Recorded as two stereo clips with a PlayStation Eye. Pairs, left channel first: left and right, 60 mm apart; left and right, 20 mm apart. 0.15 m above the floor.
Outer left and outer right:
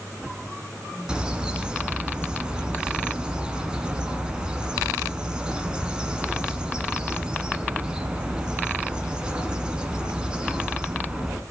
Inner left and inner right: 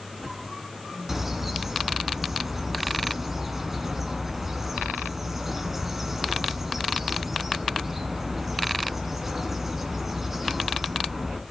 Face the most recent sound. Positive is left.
turn(degrees=-15)  # may be behind; listen again after turning